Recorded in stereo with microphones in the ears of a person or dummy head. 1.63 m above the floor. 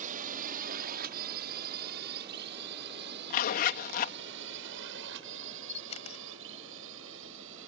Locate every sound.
0.0 s a drone: 45° right (ahead or behind); by 7.7 s 75° right (ahead or behind)
3.3 s a zipper: 45° left (ahead or behind)
5.7 s a camera shutter: 35° left (ahead or behind)